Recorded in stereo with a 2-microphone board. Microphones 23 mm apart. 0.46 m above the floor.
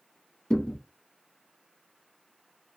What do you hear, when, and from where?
0.5 s a thud: 70° left (ahead or behind), 1.2 m